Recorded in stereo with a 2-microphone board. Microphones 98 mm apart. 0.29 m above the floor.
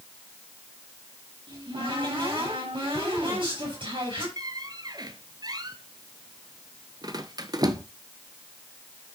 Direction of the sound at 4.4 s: 45° right (ahead or behind).